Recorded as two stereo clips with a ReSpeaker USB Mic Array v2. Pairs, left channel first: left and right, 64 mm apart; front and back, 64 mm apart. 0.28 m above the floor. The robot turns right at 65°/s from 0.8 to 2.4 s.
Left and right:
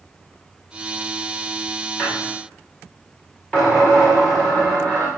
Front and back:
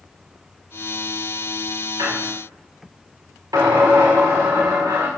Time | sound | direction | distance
2.0 | a squeak | 140° left | 5 m